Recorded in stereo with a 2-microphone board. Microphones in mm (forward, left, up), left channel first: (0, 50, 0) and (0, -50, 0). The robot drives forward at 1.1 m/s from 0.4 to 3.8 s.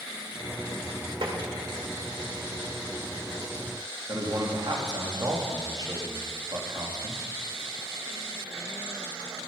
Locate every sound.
1.2 s tapping: 55° right (ahead or behind), 3 m
4.1 s a man speaking: 45° right (ahead or behind), 3 m